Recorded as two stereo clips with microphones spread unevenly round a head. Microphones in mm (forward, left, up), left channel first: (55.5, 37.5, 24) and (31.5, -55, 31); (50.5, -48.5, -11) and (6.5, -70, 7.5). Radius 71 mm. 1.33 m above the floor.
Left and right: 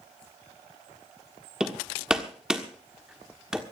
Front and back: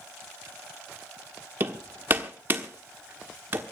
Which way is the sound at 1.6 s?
175° left.